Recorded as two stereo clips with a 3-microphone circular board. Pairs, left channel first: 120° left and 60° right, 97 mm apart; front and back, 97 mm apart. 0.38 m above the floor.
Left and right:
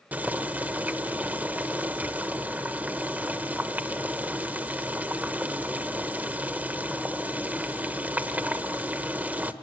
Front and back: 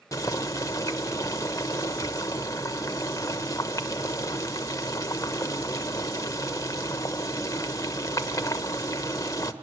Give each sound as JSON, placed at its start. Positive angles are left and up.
{"t": 0.1, "sound": "boiling", "azimuth_deg": 0, "distance_m": 1.1}